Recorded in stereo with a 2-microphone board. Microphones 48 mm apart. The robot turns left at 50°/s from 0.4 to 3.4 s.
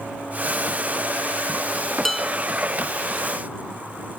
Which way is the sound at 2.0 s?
5° left (ahead or behind).